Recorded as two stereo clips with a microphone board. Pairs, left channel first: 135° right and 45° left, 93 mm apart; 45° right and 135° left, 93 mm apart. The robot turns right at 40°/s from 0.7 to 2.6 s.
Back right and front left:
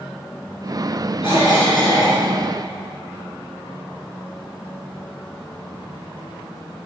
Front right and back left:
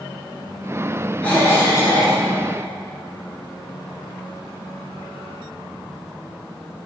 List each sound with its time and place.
1.2 s a cough: 120° right, 3.5 m; by 2.2 s 80° right, 3.5 m